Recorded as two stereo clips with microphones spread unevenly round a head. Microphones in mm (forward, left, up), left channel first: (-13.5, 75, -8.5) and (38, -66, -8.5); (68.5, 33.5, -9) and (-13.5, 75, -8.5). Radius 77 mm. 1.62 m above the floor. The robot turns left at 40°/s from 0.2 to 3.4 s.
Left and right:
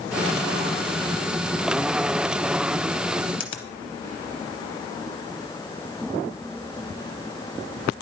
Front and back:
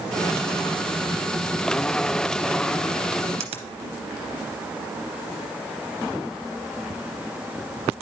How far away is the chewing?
I don't hear chewing.